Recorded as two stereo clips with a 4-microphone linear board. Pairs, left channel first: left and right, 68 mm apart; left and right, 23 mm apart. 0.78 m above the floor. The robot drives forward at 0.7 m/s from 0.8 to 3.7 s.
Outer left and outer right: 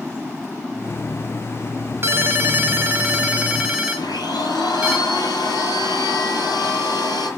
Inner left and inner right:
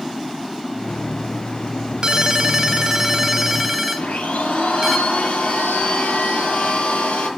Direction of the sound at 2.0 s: 35° right (ahead or behind).